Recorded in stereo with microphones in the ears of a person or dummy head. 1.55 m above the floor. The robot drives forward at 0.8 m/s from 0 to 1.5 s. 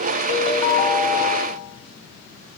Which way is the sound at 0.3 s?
35° left (ahead or behind).